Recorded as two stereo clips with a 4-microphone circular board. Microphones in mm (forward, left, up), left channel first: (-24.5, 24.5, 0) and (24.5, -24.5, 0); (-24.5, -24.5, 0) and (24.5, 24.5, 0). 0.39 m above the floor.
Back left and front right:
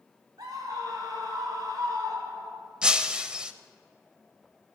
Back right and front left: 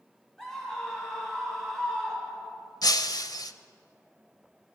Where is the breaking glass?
120° right, 0.6 m.